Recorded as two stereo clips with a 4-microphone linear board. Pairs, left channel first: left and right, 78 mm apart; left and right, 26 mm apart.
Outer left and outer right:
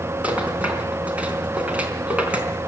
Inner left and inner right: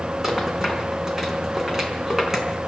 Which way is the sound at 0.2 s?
15° right (ahead or behind).